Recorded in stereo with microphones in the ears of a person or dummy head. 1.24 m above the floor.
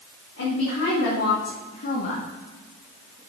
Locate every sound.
0.4 s a woman speaking: 85° left, 2.5 m; by 3.2 s 15° right (ahead or behind), 1.4 m